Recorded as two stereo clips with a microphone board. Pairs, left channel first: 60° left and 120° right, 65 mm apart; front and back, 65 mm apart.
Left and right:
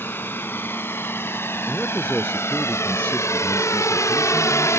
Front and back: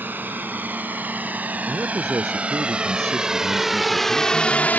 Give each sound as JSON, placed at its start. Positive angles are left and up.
{"t": 0.0, "sound": "a drone", "azimuth_deg": 120}
{"t": 1.7, "sound": "a man speaking", "azimuth_deg": 135}